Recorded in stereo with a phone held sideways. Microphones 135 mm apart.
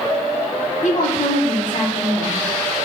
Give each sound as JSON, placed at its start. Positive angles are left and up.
{"t": 0.8, "sound": "a woman speaking", "side_deg": 70, "distance_m": 1.8}